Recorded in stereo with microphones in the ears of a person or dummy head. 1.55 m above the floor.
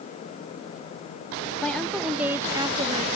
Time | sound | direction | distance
1.6 | a woman speaking | 5° left (ahead or behind) | ?